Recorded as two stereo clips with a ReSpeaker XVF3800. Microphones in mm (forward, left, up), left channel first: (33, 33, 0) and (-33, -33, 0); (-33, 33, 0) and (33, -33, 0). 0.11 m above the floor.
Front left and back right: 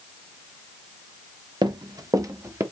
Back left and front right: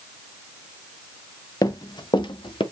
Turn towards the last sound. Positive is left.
turn(degrees=165)